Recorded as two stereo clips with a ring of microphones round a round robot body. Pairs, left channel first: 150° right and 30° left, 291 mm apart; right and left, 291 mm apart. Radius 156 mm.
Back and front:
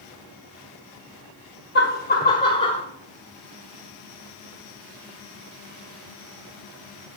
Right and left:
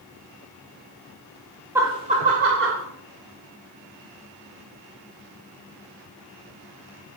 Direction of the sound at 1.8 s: 170° left.